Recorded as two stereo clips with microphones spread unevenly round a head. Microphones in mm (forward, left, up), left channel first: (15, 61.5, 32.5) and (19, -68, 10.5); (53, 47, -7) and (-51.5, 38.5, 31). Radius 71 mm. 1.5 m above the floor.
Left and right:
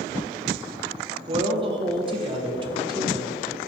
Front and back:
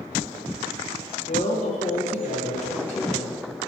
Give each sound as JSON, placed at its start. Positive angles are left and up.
{"t": 1.3, "sound": "a woman speaking", "azimuth_deg": -35, "distance_m": 1.2}